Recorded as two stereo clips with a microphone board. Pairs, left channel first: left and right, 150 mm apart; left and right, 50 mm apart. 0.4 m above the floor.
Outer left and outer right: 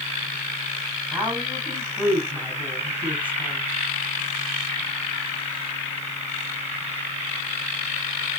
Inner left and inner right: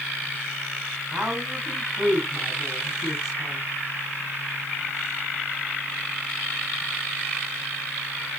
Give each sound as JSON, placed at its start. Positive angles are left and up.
{"t": 1.1, "sound": "a woman speaking", "side_deg": -10, "distance_m": 3.5}